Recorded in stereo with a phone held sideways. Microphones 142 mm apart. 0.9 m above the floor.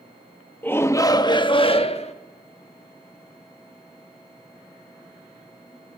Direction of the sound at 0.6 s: 15° left (ahead or behind).